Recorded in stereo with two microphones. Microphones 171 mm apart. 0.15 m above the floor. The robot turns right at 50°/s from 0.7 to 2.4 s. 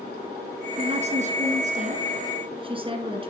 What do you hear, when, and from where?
0.8 s a woman speaking: 130° right, 1.8 m; by 3.3 s 50° right, 1.8 m